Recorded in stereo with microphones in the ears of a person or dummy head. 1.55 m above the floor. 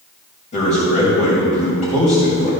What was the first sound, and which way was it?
A man speaking, 35° left (ahead or behind).